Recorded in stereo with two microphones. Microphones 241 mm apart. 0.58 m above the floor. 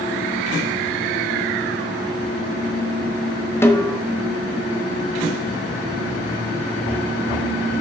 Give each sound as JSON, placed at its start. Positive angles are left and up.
{"t": 3.6, "sound": "a snare drum", "side_deg": 10, "distance_m": 1.0}